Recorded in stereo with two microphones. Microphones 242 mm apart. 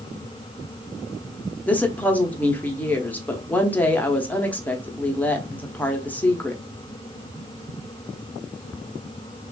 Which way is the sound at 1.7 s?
5° left (ahead or behind).